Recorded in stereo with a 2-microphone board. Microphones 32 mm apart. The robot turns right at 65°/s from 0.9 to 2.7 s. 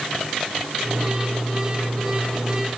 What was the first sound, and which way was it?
Only background noise.